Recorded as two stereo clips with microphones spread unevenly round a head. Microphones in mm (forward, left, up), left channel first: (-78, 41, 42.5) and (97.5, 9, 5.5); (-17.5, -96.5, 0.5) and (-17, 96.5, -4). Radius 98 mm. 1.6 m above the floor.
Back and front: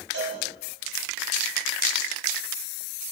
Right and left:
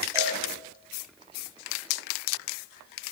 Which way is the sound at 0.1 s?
15° left.